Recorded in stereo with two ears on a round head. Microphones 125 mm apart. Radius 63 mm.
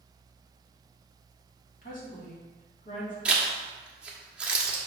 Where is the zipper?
10° right (ahead or behind), 1.4 m.